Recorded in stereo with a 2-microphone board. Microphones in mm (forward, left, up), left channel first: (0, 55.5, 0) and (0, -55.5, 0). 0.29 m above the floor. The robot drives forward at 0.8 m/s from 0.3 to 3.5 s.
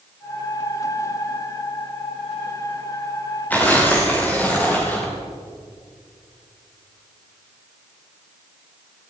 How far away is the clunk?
No clunk in this recording.